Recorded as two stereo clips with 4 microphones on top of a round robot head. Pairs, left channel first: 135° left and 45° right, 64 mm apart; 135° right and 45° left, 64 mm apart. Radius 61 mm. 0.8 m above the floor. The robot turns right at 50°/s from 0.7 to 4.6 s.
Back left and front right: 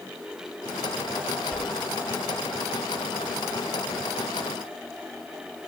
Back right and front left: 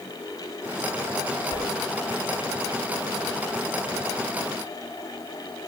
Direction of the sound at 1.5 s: 155° right.